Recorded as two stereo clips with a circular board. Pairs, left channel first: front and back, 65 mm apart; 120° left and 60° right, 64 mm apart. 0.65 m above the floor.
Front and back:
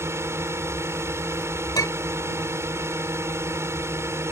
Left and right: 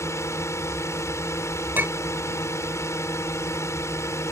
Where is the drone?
150° left.